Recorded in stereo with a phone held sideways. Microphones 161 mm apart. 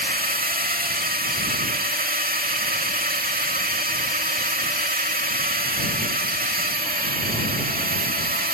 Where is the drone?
65° right (ahead or behind).